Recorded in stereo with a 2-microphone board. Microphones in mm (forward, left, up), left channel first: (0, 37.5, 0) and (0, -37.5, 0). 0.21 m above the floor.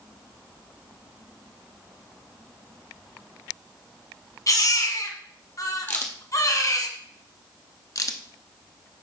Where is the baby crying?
45° left (ahead or behind), 1.3 m.